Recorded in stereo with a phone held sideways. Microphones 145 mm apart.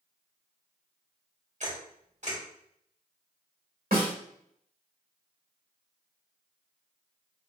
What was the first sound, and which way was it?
A camera shutter, 55° right (ahead or behind).